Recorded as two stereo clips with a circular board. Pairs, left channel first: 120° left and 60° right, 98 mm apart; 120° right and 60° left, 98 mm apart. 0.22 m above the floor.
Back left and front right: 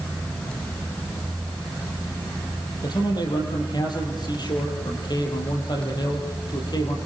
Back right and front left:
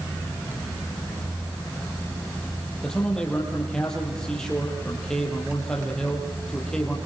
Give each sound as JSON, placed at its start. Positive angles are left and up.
{"t": 2.8, "sound": "a man speaking", "azimuth_deg": 160, "distance_m": 7.5}